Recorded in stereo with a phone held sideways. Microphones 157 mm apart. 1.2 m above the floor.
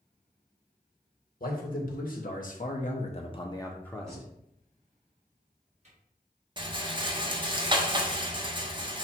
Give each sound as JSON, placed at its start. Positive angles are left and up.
{"t": 1.4, "sound": "a man speaking", "side_deg": 60, "distance_m": 1.3}
{"t": 4.1, "sound": "a cupboard door", "side_deg": -45, "distance_m": 1.6}
{"t": 6.6, "sound": "a rattle", "side_deg": -30, "distance_m": 0.7}